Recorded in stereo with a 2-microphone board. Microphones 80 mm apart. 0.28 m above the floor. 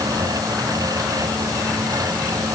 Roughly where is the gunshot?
No gunshot in this recording.